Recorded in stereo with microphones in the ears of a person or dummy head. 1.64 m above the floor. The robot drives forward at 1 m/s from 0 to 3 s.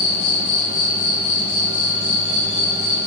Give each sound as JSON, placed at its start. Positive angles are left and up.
{"t": 0.0, "sound": "an insect", "side_deg": 85, "distance_m": 4.5}